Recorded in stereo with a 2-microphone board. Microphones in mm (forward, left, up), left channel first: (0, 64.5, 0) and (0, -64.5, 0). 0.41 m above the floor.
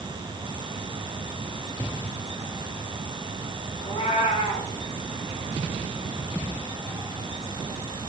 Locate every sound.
3.8 s a cat meowing: 50° left (ahead or behind), 3 m